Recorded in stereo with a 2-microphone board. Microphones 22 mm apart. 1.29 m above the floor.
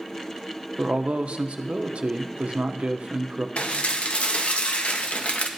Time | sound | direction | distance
0.8 | a man speaking | 60° right (ahead or behind) | 0.6 m
3.6 | dishes clattering | 60° left (ahead or behind) | 0.7 m